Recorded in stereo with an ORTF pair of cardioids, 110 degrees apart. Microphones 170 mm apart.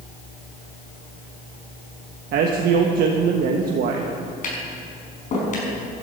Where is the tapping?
45° left, 5.5 m.